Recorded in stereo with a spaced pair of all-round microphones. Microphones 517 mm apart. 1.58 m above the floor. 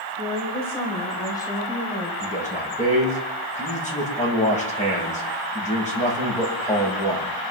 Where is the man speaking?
15° left (ahead or behind), 6.5 m.